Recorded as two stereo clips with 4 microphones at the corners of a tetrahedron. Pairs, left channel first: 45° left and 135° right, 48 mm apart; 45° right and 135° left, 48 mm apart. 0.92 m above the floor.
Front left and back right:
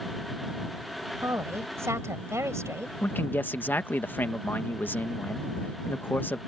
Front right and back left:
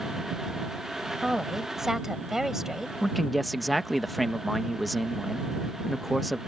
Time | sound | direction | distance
1.2 | a woman speaking | 140° right | ?
3.0 | a man speaking | 45° left | ?